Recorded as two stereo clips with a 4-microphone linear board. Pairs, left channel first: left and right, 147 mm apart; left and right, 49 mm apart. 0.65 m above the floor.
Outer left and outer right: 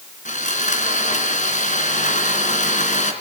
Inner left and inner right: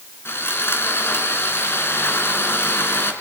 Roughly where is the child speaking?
I don't hear a child speaking.